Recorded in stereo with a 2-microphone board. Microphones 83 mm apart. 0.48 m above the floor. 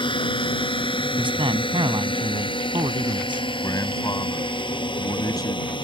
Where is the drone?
75° left (ahead or behind); by 5.8 s 70° left (ahead or behind).